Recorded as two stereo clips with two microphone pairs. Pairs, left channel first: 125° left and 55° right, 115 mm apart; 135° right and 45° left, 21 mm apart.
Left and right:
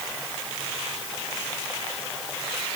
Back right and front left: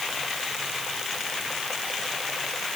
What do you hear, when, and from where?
Only background noise.